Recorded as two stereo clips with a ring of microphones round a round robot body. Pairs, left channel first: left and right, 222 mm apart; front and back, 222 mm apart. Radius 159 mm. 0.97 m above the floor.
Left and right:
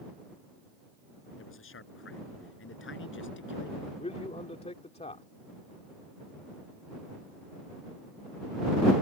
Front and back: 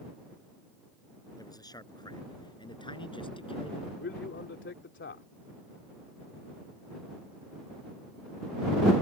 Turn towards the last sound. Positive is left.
turn(degrees=30)